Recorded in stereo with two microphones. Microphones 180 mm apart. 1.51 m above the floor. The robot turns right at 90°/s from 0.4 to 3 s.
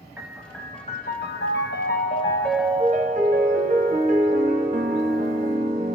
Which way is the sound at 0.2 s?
10° right.